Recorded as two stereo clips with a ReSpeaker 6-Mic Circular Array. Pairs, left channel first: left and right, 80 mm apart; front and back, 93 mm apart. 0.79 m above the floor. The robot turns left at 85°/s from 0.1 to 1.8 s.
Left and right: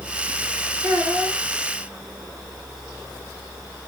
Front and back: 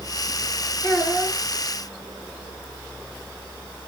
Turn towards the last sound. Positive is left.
turn(degrees=-165)